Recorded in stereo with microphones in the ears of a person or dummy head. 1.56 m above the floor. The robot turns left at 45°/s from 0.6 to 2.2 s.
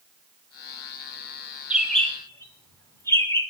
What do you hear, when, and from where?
1.7 s a bird: 5° right (ahead or behind), 3 m; by 3.4 s 15° left (ahead or behind), 3 m